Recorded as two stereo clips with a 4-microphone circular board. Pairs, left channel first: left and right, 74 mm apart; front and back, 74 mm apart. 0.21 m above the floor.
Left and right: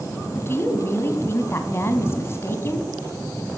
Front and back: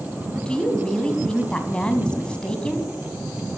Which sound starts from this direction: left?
A woman speaking, at 0.3 s.